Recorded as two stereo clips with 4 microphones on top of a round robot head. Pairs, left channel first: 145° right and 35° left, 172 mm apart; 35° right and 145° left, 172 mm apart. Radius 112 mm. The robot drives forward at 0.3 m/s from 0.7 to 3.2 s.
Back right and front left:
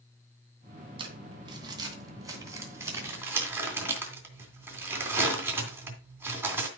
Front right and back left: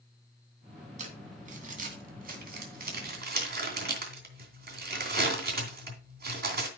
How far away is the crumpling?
About 2.5 m.